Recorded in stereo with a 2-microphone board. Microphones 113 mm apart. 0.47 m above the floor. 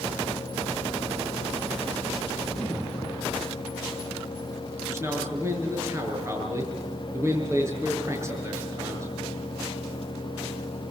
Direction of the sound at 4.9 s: 25° right (ahead or behind).